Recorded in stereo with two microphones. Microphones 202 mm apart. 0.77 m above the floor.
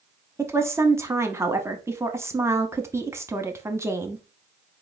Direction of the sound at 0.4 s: 15° right (ahead or behind).